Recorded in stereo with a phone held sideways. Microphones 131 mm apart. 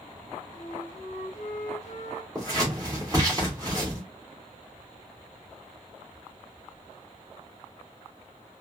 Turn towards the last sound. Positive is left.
turn(degrees=-25)  # may be behind; listen again after turning